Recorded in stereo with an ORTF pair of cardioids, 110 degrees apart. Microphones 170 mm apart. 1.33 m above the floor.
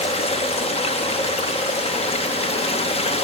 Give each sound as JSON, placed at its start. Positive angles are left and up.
{"t": 0.0, "sound": "running water", "azimuth_deg": 40, "distance_m": 0.9}